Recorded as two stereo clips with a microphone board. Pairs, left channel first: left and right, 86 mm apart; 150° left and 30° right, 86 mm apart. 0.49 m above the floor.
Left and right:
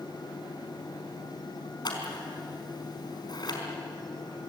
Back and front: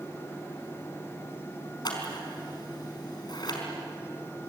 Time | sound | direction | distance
1.9 | scissors | 120° left | 4.5 m